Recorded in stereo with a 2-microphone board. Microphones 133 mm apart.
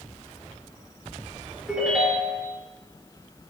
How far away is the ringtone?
About 4 m.